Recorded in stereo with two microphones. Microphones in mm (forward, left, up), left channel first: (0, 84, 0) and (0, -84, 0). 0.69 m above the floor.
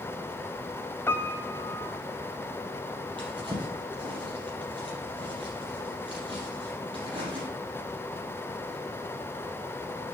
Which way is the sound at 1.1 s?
15° left (ahead or behind).